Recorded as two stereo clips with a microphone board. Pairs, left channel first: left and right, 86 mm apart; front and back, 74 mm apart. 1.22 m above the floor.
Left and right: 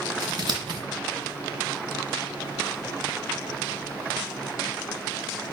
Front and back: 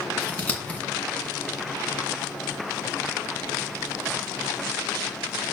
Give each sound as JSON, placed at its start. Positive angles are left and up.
{"t": 0.2, "sound": "scissors", "azimuth_deg": -70, "distance_m": 2.0}